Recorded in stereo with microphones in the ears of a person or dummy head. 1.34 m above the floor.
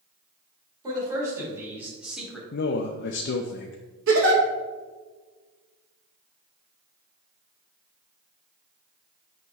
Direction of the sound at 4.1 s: 70° right (ahead or behind).